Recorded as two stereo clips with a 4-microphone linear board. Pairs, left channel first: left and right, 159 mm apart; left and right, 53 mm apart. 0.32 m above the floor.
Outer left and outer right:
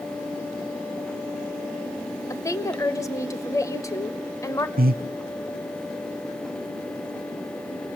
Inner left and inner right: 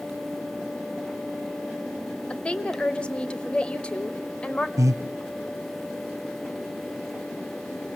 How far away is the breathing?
About 0.5 m.